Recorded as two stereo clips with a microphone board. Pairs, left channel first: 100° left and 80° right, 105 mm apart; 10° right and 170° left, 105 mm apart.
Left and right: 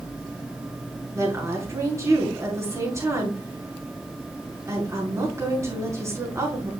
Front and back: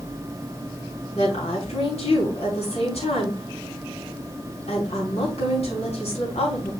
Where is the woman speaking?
20° right, 5.5 m.